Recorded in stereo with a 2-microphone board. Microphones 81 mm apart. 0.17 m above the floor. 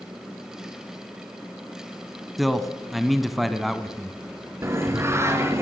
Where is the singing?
35° right (ahead or behind), 2.5 m.